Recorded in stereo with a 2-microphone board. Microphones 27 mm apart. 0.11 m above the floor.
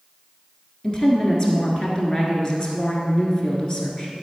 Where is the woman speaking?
25° left (ahead or behind), 1.4 m.